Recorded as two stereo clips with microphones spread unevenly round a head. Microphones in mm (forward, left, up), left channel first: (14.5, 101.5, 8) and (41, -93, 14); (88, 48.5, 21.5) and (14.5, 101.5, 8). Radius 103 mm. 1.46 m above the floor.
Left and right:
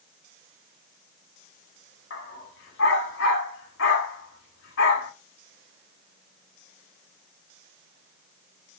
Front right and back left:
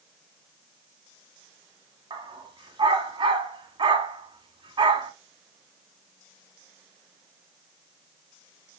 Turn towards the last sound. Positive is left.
turn(degrees=120)